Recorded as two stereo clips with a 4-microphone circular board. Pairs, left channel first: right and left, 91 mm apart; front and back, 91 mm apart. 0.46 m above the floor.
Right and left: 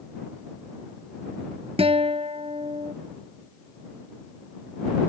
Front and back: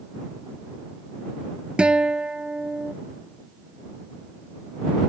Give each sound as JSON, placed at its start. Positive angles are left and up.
{"t": 1.8, "sound": "a guitar", "azimuth_deg": 100}